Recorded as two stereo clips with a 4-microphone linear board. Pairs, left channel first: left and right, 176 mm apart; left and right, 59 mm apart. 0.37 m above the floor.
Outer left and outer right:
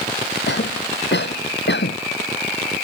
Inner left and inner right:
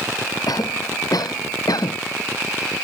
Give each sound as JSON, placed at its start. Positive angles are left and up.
{"t": 0.5, "sound": "a cough", "side_deg": 85}